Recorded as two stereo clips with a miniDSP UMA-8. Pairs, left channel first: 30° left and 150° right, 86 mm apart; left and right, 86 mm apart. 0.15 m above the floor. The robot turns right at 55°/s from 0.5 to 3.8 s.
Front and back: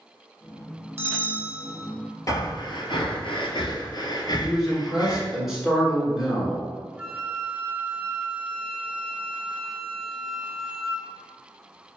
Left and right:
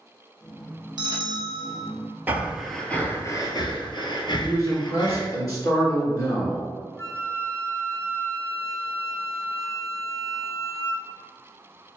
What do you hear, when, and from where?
1.0 s a bell: 95° right, 0.8 m; by 1.9 s 45° right, 0.8 m
2.3 s breathing: 20° right, 0.7 m; by 5.3 s 65° left, 0.7 m
4.4 s a man speaking: 125° left, 1.7 m
7.0 s a flute: 140° left, 0.9 m